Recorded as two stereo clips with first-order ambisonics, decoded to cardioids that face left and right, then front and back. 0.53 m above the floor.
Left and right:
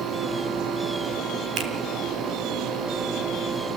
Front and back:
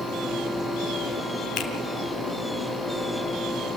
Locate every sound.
1.6 s a finger snap: 50° right, 2.5 m